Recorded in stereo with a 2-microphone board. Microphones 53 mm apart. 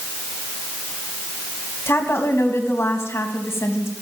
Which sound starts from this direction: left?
A woman speaking, at 1.9 s.